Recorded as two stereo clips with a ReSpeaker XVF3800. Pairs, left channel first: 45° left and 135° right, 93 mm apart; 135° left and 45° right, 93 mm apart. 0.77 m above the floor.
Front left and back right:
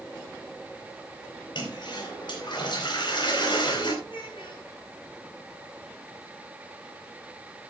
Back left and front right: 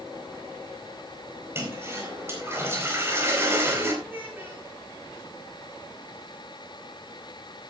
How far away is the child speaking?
About 7.5 m.